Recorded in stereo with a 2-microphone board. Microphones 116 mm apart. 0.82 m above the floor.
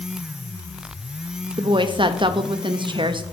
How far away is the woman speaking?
About 0.5 m.